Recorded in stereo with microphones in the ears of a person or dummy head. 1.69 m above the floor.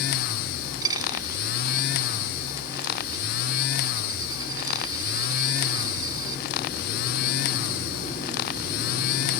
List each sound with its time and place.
0.8 s a dropped coin: 25° right (ahead or behind)